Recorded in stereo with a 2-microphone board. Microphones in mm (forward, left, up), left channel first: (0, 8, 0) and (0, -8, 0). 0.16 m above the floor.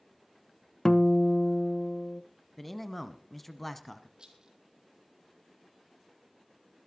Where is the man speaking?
10° left (ahead or behind), 1.1 m.